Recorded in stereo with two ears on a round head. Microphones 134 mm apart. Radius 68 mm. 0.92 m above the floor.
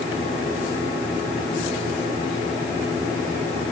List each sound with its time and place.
Only background noise.